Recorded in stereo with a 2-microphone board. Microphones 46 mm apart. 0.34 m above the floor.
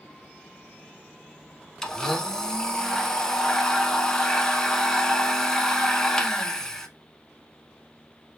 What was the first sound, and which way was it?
A blender, 10° left (ahead or behind).